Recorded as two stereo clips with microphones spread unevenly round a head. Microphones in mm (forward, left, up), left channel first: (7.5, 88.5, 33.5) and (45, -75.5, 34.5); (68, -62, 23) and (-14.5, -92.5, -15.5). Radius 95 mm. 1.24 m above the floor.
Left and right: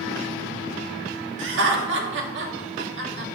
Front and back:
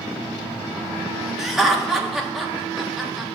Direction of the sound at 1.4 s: 80° right.